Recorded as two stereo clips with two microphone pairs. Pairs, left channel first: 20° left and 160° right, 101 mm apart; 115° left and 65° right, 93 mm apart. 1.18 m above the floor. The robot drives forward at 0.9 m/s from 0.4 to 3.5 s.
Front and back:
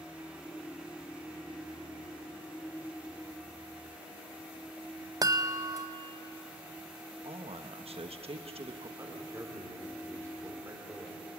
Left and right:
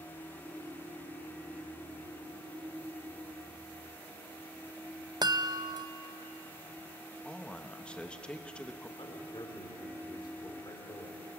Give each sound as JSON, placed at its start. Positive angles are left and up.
{"t": 5.2, "sound": "a chime", "azimuth_deg": -110, "distance_m": 0.6}
{"t": 7.2, "sound": "a man speaking", "azimuth_deg": -165, "distance_m": 1.2}
{"t": 9.0, "sound": "a man speaking", "azimuth_deg": 145, "distance_m": 4.5}